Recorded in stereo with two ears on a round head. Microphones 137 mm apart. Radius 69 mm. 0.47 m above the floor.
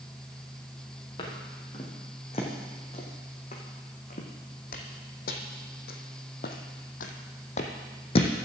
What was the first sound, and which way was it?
Footsteps, 35° left (ahead or behind).